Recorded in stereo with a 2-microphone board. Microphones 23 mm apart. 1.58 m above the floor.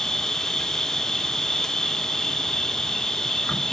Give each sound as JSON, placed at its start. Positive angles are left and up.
{"t": 0.0, "sound": "an insect", "side_deg": 25, "distance_m": 0.8}